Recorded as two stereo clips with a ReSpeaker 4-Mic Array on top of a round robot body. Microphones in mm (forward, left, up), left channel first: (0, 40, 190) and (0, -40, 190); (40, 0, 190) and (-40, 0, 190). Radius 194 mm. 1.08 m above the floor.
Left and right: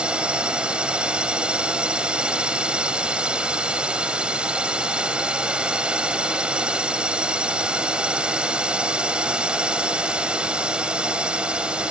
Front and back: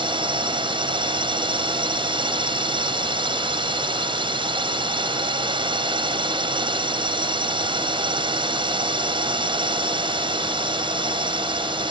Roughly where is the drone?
Behind.